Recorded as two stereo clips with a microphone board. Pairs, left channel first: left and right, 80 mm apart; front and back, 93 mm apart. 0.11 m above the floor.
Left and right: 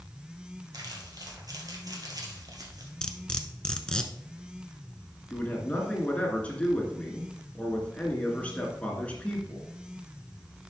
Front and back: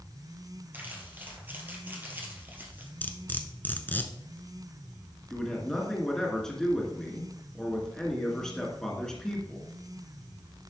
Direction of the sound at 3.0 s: 30° left.